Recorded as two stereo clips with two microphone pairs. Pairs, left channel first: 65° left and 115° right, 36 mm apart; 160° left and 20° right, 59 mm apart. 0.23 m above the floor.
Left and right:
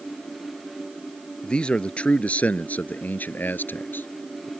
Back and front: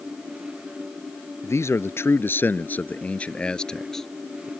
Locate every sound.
1.4 s a man speaking: 125° left; by 4.5 s 70° left